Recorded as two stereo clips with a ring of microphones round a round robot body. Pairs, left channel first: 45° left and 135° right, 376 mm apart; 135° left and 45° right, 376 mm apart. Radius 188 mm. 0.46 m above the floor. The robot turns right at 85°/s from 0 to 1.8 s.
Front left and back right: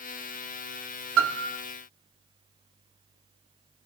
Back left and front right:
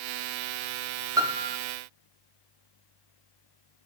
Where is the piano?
120° right, 1.2 m; by 1.6 s 85° right, 1.2 m.